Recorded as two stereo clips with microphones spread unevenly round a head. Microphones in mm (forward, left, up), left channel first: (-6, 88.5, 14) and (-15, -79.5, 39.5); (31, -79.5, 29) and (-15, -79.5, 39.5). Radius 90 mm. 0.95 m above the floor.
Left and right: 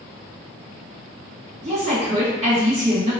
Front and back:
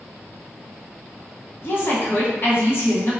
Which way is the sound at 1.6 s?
35° right.